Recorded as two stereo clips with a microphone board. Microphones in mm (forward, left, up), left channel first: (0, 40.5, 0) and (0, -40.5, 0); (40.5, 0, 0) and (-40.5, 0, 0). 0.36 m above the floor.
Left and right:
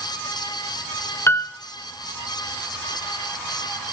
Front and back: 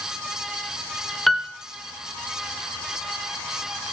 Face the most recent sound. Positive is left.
turn(degrees=90)